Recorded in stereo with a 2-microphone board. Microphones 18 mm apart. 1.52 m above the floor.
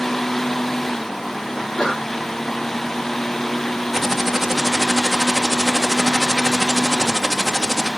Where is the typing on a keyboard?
15° right (ahead or behind), 1.2 m.